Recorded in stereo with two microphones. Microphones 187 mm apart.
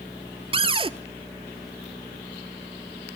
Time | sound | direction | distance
0.5 | a cupboard door | 30° right (ahead or behind) | 0.6 m